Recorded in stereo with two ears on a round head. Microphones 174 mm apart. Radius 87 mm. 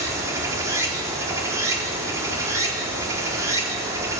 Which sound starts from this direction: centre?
Running water, at 0.0 s.